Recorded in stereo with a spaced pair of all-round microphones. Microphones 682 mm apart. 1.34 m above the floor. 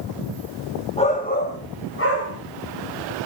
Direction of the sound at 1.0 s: 10° left (ahead or behind).